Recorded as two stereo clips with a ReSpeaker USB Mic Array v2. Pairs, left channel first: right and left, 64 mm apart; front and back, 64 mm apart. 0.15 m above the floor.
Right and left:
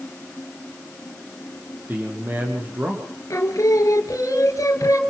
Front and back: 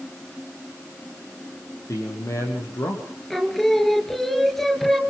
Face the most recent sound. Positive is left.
turn(degrees=-85)